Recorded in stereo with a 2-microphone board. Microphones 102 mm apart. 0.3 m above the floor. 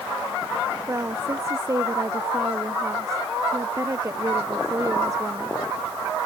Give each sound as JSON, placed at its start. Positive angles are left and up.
{"t": 0.9, "sound": "a woman speaking", "side_deg": -30}